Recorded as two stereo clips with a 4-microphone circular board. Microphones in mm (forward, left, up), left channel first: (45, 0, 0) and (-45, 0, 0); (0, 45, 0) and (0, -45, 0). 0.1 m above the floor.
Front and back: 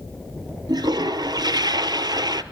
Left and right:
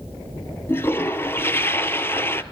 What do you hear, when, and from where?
0.7 s a toilet flushing: 150° left, 0.5 m